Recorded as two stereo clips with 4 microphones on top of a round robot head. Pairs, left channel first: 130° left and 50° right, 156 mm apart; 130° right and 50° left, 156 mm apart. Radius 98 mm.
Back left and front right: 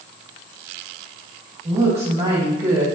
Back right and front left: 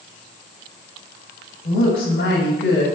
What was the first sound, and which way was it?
A woman speaking, 100° right.